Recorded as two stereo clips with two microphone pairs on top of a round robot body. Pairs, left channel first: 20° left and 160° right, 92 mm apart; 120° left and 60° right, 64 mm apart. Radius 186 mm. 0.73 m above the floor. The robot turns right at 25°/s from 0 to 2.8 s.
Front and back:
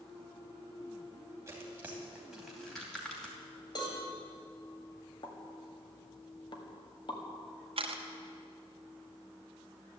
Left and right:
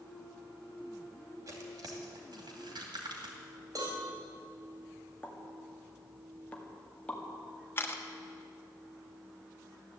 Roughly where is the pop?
Ahead left.